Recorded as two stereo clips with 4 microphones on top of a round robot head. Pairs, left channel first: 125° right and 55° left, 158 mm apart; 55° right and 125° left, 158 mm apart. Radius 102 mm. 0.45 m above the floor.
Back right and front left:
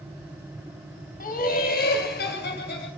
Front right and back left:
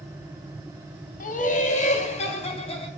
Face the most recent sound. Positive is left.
turn(degrees=-110)